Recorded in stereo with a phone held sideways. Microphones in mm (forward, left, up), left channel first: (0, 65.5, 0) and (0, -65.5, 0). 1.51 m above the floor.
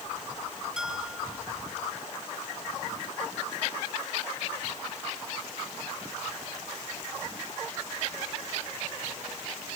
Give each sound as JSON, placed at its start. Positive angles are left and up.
{"t": 0.8, "sound": "a bell", "side_deg": -5}